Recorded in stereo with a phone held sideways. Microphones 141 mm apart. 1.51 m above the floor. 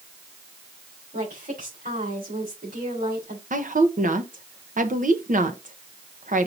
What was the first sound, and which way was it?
A woman speaking, 85° right.